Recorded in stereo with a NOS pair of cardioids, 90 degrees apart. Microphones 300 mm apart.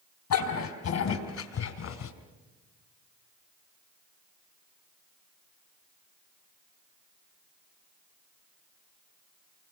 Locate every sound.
0.3 s a dog barking: 70° left, 5 m; by 2.1 s 60° left, 3.5 m